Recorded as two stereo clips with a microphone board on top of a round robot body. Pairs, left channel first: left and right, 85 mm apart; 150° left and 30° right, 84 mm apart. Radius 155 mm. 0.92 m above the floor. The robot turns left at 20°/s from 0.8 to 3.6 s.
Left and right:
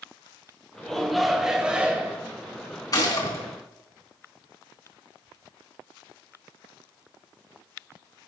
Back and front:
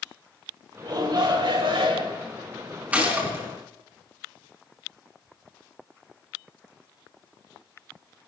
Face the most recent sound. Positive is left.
turn(degrees=30)